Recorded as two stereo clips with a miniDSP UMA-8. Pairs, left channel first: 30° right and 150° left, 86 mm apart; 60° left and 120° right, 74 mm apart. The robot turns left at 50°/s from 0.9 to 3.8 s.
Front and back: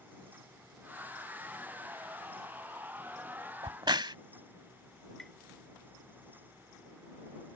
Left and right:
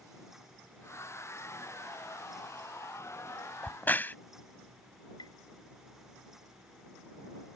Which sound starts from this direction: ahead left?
Tapping, at 5.2 s.